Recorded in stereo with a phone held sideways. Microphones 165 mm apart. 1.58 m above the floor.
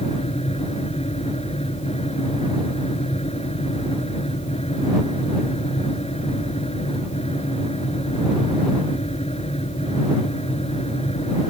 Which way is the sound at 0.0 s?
40° left (ahead or behind).